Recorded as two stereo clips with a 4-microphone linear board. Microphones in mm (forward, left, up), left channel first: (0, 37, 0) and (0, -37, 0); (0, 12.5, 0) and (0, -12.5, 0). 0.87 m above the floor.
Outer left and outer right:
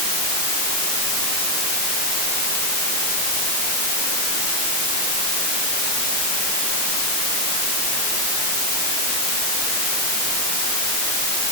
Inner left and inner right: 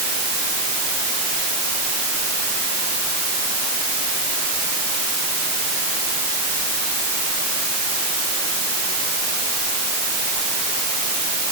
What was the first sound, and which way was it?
Only background noise.